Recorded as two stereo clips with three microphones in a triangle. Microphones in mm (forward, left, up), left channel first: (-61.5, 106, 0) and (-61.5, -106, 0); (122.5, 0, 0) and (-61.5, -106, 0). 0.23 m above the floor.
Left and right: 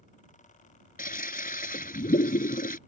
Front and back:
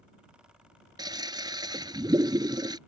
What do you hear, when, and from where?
1.0 s a toilet flushing: 140° left